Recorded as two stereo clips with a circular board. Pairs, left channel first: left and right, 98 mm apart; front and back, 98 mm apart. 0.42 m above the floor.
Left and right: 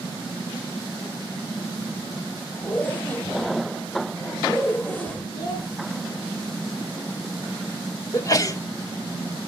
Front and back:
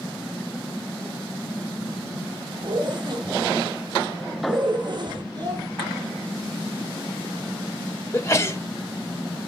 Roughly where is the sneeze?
Ahead left.